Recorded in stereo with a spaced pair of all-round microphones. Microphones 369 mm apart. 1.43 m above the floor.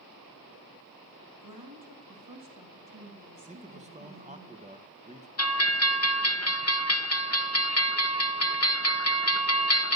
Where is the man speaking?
20° right (ahead or behind), 0.9 m.